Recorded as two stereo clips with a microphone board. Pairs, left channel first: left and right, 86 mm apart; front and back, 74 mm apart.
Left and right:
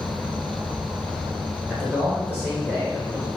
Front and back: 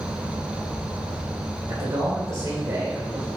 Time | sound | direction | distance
0.0 | an insect | 40° right | 1.0 m
1.7 | a man speaking | 155° right | 1.7 m